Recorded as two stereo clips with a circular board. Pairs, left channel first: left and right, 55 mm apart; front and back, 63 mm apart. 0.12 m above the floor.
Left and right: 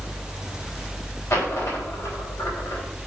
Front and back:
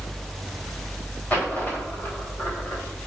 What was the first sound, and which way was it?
A dropped coin, 65° left.